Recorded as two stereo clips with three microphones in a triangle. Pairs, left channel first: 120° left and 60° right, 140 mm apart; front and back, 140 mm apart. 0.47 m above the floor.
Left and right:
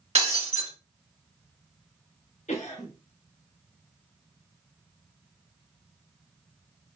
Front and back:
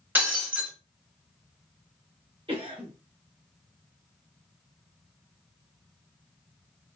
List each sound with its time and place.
0.1 s breaking glass: 105° right, 1.4 m
2.5 s a cough: 135° left, 1.2 m